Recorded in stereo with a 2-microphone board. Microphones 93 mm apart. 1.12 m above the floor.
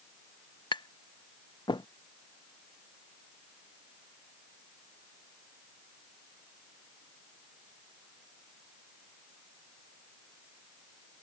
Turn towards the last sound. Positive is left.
turn(degrees=55)  # may be behind; listen again after turning